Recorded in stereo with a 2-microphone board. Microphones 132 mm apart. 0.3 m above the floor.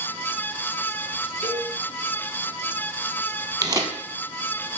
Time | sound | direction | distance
1.4 | a cowbell | 55° right (ahead or behind) | 3 m
3.6 | tearing paper | 30° right (ahead or behind) | 1.3 m